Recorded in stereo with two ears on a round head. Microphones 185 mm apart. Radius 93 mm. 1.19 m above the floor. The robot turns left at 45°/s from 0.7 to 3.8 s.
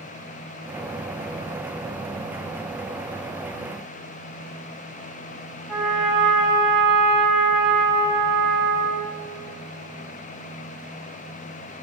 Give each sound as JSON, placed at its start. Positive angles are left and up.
{"t": 5.7, "sound": "a trumpet", "side_deg": 0, "distance_m": 0.8}